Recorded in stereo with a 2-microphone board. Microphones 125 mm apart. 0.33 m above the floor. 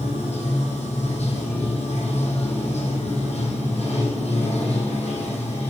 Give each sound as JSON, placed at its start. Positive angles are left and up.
{"t": 0.0, "sound": "running water", "side_deg": 60, "distance_m": 2.5}